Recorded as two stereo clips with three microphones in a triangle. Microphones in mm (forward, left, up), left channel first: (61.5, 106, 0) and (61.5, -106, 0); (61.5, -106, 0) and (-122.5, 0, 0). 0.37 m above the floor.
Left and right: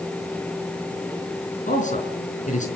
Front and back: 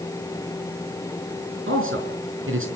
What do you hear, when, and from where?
1.7 s a man speaking: 140° left, 5 m